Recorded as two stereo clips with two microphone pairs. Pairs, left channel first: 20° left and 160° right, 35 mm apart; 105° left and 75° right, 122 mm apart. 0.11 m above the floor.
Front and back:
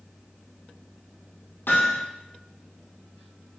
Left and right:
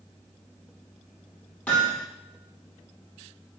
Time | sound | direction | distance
1.7 | hammering | 25° left | 3.5 m